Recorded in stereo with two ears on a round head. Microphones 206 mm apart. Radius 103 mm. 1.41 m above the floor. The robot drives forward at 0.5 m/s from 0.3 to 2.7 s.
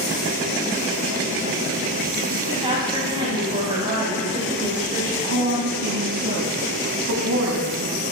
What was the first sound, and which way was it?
A woman speaking, 25° right (ahead or behind).